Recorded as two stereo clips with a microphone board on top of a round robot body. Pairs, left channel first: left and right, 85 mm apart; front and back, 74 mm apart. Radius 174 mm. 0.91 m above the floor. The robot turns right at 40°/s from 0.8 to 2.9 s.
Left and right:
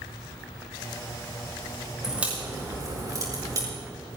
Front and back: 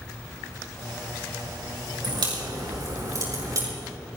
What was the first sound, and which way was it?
A crack, 170° right.